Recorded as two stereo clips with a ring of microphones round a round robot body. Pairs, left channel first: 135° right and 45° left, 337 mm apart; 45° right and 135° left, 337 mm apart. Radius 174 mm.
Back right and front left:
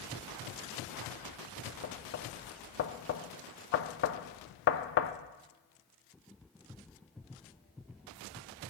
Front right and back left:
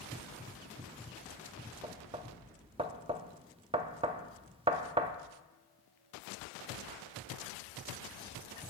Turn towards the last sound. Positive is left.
turn(degrees=-160)